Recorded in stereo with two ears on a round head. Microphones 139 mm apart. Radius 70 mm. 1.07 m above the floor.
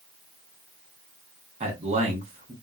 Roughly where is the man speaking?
Right.